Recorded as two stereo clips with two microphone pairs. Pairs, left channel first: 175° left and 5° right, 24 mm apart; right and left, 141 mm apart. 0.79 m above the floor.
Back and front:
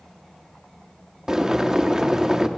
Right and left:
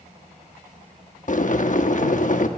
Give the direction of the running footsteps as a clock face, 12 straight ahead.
No running footsteps in this recording.